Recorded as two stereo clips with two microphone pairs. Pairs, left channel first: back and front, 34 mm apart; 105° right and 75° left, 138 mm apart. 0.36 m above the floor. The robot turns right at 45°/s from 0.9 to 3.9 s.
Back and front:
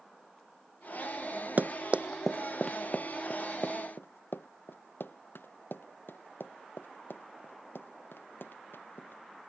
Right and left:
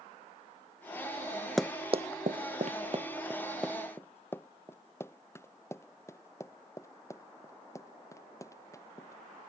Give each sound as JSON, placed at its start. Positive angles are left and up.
{"t": 1.6, "sound": "running footsteps", "azimuth_deg": -25}